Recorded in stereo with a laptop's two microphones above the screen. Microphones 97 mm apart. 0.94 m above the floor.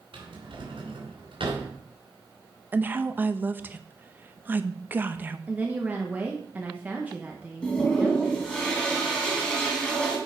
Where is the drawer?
75° right (ahead or behind), 3 m.